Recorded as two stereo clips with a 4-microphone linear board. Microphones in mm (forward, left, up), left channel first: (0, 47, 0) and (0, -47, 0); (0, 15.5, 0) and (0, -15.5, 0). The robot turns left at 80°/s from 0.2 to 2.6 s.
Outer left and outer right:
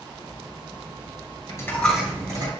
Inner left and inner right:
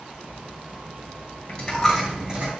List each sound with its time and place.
1.5 s a dropped coin: 35° left (ahead or behind), 3 m; by 2.5 s 45° right (ahead or behind), 3 m